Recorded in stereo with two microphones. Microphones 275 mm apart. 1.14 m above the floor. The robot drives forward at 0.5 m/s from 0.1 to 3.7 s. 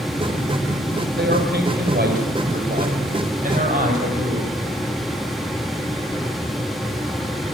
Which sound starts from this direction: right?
A man speaking, at 1.2 s.